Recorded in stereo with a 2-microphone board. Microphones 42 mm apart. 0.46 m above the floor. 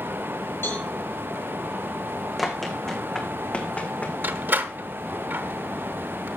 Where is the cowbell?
60° left (ahead or behind), 5.5 m.